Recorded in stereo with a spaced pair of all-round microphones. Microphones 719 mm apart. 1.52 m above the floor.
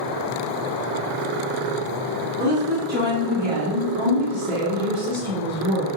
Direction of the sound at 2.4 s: 15° right (ahead or behind).